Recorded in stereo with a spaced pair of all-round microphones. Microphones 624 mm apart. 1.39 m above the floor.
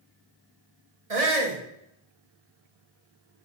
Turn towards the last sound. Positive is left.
turn(degrees=-65)  # may be behind; listen again after turning